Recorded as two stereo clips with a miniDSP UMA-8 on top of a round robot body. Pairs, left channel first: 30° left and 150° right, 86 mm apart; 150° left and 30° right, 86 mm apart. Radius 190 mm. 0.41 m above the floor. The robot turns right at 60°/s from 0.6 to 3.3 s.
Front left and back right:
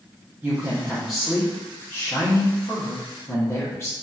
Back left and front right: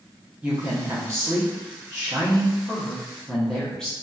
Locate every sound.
0.4 s a woman speaking: 95° right, 1.0 m; by 3.9 s 70° left, 1.0 m